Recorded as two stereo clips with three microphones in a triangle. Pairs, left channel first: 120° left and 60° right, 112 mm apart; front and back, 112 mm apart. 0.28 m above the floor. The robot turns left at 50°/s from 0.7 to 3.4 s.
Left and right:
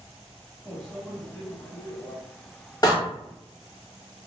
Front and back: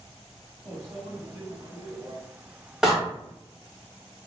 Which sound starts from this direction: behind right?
A microwave, at 0.7 s.